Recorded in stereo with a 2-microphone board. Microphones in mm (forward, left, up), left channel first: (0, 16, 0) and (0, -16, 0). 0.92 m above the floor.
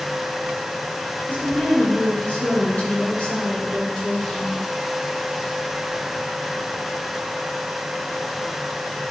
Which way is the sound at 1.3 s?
65° left (ahead or behind).